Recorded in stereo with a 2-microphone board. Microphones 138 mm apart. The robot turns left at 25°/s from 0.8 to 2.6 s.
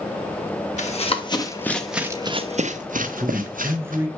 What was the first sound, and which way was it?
Running footsteps, 55° left (ahead or behind).